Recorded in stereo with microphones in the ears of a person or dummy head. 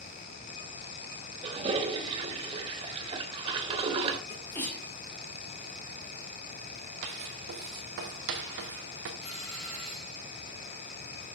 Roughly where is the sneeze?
Centre.